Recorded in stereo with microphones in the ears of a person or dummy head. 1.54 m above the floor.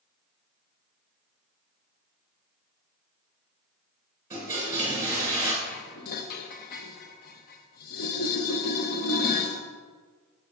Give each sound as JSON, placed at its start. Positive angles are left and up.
{"t": 4.3, "sound": "a toilet flushing", "side_deg": -15, "distance_m": 2.5}
{"t": 5.6, "sound": "dishes clattering", "side_deg": 50, "distance_m": 0.9}